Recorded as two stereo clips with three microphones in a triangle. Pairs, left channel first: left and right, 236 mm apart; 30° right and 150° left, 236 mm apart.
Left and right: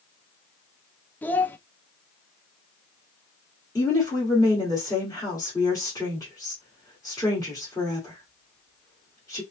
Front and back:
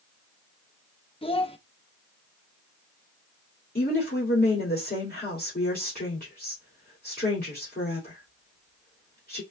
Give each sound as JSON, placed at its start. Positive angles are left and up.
{"t": 1.2, "sound": "a child speaking", "azimuth_deg": 10, "distance_m": 0.6}
{"t": 3.8, "sound": "a woman speaking", "azimuth_deg": 15, "distance_m": 2.5}